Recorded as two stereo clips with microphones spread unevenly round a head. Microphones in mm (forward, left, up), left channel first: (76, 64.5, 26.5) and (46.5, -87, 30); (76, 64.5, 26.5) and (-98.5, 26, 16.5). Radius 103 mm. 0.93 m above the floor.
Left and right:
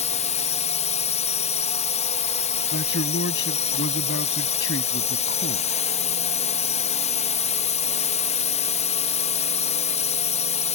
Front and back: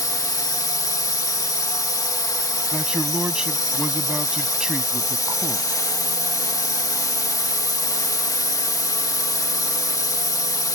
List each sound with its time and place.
0.0 s a drone: 80° left
2.7 s a man speaking: 105° left